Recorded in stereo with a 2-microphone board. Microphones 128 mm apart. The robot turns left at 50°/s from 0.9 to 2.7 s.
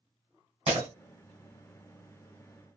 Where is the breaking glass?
55° right (ahead or behind), 1.8 m.